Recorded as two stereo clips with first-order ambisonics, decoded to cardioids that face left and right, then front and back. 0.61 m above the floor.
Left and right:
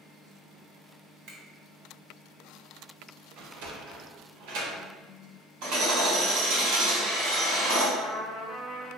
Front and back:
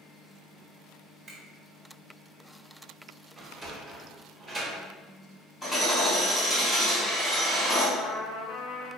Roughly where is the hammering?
Right.